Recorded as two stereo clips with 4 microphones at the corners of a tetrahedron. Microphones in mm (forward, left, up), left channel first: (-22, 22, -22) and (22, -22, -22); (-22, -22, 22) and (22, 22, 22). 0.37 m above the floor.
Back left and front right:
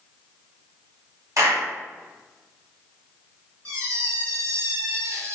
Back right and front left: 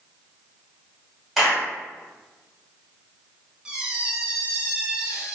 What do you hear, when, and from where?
1.4 s a clap: 40° right, 2 m
3.6 s a squeak: 30° right, 1.4 m